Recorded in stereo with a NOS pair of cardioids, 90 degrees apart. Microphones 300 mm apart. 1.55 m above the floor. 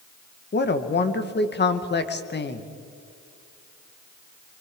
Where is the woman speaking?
35° left, 1.9 m.